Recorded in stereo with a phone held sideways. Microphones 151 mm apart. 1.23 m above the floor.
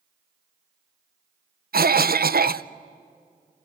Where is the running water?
No running water in this recording.